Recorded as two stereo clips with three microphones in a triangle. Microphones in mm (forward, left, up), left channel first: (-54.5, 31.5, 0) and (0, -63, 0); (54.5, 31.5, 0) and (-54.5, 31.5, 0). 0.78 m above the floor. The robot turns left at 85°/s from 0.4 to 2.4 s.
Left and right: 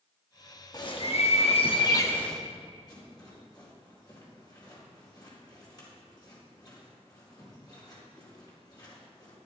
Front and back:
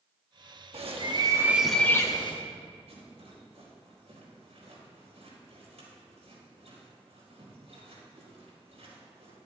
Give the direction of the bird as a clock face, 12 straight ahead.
6 o'clock.